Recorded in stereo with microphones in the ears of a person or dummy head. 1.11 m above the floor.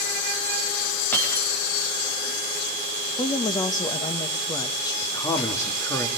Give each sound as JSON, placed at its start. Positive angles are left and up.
{"t": 1.1, "sound": "breaking glass", "side_deg": 10, "distance_m": 8.0}
{"t": 3.2, "sound": "a woman speaking", "side_deg": 20, "distance_m": 1.4}
{"t": 5.0, "sound": "a man speaking", "side_deg": 15, "distance_m": 1.9}